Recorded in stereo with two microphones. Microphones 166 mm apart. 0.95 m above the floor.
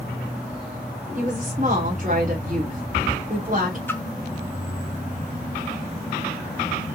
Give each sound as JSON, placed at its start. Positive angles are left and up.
{"t": 1.1, "sound": "a woman speaking", "side_deg": -50, "distance_m": 3.0}
{"t": 3.9, "sound": "a splash", "side_deg": 10, "distance_m": 1.0}